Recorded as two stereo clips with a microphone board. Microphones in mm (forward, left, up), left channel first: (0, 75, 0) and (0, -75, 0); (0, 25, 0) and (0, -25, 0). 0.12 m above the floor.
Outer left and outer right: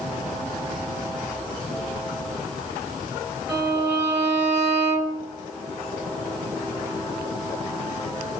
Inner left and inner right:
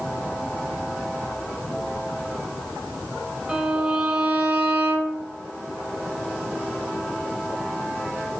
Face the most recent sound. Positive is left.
turn(degrees=-15)  # may be behind; listen again after turning